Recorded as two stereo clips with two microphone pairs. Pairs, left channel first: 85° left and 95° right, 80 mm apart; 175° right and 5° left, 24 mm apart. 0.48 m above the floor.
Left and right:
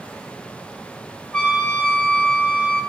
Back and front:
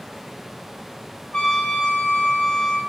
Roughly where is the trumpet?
Behind.